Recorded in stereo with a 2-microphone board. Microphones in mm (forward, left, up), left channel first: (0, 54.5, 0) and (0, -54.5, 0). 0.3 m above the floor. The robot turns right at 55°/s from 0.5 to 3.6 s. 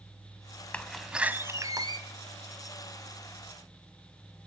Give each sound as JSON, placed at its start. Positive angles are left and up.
{"t": 0.7, "sound": "a door slam", "azimuth_deg": 165, "distance_m": 1.2}